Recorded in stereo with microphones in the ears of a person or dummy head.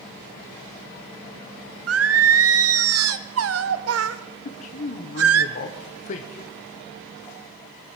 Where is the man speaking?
45° left (ahead or behind), 0.8 m.